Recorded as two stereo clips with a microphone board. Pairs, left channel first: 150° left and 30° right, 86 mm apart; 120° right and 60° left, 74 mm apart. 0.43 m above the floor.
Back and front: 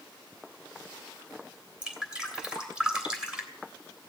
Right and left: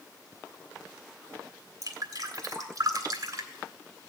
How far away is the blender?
No blender in this recording.